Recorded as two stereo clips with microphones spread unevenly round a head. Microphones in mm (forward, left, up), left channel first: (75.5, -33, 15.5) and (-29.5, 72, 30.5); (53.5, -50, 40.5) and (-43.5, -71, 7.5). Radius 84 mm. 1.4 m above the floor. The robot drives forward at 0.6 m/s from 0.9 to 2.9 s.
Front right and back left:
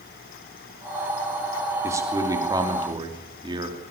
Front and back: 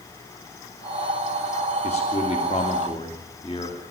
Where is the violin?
I don't hear a violin.